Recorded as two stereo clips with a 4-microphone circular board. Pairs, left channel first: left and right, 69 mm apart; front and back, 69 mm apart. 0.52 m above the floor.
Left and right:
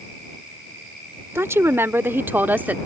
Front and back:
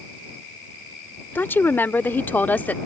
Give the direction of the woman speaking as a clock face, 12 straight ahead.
2 o'clock.